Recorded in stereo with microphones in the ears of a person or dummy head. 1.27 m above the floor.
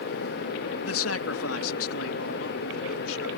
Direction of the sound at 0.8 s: 75° left (ahead or behind).